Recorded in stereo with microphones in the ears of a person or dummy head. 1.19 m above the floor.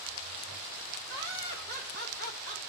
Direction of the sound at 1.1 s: 50° right (ahead or behind).